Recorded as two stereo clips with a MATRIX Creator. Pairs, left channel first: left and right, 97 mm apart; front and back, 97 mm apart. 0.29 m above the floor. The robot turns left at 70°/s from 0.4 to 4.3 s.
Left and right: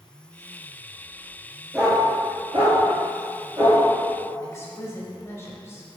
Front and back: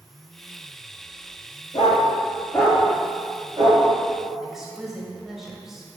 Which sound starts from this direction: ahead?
A dog barking, at 1.7 s.